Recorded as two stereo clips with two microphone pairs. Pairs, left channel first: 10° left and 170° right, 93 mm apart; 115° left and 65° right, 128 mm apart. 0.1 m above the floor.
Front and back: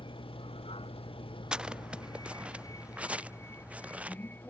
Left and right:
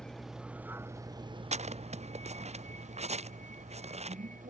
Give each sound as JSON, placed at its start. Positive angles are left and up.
{"t": 0.0, "sound": "a vehicle", "azimuth_deg": 30}
{"t": 1.5, "sound": "footsteps", "azimuth_deg": -90}